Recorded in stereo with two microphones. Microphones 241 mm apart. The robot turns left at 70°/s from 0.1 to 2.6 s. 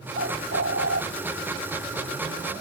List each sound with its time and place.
0.1 s a bird: 50° right, 0.8 m; by 1.0 s 110° right, 0.8 m